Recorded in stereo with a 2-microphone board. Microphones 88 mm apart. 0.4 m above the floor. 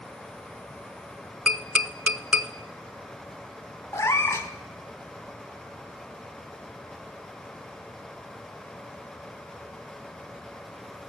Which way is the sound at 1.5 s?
10° right (ahead or behind).